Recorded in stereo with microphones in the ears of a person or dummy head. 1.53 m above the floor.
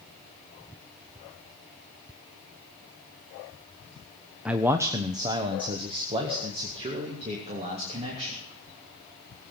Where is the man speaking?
5° right (ahead or behind), 0.6 m; by 8.4 s 30° right (ahead or behind), 3.5 m.